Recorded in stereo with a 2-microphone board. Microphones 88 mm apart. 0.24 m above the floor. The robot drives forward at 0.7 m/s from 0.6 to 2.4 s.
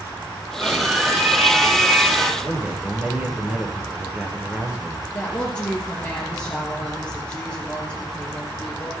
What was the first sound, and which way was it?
A scream, 5° right (ahead or behind).